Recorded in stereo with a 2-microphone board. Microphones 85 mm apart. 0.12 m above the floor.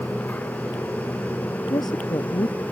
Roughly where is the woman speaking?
Left.